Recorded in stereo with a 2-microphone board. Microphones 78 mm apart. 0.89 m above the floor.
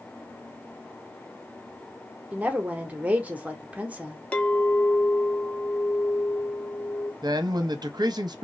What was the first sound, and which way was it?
A woman speaking, 20° right (ahead or behind).